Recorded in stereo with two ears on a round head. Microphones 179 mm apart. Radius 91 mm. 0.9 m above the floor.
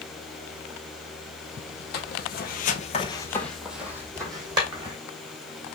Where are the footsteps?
55° left (ahead or behind), 1.6 m; by 5.0 s 25° right (ahead or behind), 2.5 m.